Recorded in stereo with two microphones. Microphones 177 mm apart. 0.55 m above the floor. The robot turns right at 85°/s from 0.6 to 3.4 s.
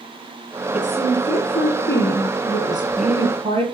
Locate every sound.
0.7 s a woman speaking: 15° right, 6 m; by 3.6 s 150° right, 6 m